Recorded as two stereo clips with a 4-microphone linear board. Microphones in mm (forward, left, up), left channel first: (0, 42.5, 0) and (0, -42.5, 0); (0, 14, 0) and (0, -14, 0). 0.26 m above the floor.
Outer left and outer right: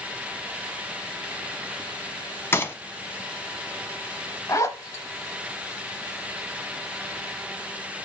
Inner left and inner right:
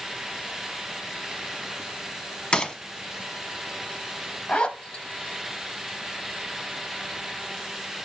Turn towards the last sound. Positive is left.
turn(degrees=40)  # may be behind; listen again after turning